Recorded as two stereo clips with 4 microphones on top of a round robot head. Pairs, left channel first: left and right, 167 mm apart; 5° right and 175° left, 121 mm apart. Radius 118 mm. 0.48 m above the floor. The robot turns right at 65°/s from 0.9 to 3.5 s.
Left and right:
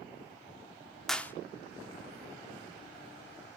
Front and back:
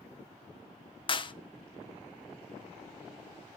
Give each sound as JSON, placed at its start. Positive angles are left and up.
{"t": 1.1, "sound": "a clap", "azimuth_deg": 0, "distance_m": 0.7}